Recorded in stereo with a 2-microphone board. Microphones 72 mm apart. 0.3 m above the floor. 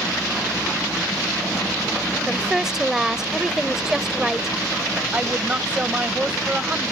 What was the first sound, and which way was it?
A woman speaking, 5° right (ahead or behind).